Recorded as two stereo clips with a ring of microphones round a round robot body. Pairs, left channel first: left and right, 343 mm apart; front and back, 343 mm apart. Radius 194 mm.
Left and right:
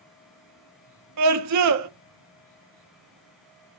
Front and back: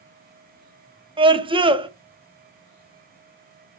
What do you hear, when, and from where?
1.2 s a scream: 105° right, 0.9 m